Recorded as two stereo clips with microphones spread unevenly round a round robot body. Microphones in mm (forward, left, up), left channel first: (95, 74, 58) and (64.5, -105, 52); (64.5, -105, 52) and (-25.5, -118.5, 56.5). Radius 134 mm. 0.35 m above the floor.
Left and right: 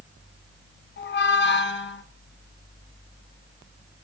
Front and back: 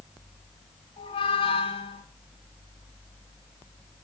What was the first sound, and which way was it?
A squeak, 55° left.